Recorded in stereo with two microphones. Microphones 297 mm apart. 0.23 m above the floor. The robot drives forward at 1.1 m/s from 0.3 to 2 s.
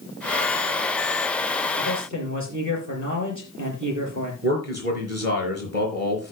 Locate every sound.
1.8 s a man speaking: 65° right (ahead or behind), 5.5 m; by 4.3 s 70° right (ahead or behind), 5 m
4.4 s a man speaking: 55° right (ahead or behind), 4 m